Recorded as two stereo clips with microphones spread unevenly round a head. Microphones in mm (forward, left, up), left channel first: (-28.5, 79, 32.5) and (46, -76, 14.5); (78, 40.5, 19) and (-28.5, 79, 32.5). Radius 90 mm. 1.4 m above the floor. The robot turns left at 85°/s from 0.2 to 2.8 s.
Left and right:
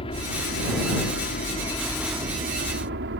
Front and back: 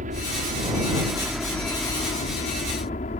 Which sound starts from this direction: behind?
A helicopter, at 0.0 s.